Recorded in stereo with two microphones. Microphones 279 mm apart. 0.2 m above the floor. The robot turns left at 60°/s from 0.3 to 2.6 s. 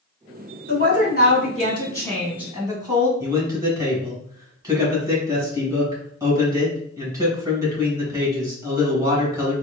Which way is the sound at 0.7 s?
95° left.